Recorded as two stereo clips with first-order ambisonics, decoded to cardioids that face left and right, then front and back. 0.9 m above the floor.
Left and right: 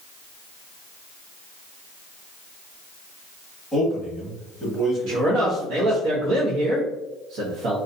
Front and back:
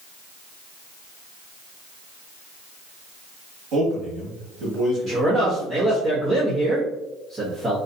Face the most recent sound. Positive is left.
turn(degrees=-105)